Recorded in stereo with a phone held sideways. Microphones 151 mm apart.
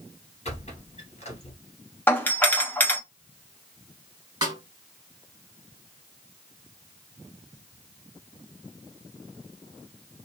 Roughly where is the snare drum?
Right.